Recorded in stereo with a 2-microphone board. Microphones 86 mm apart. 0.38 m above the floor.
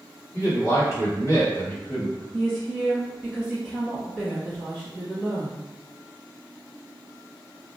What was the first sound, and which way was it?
A man speaking, 35° left (ahead or behind).